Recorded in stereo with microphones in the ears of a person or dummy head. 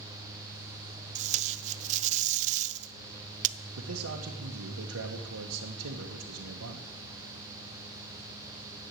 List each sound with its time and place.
1.1 s tape being pulled: 40° right (ahead or behind), 0.5 m
3.8 s a man speaking: 80° right, 1.2 m